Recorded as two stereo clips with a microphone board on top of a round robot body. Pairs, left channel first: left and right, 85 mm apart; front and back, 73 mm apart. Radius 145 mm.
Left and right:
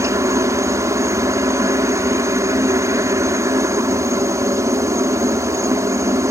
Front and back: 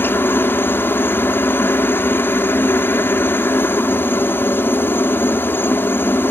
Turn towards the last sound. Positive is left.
turn(degrees=-50)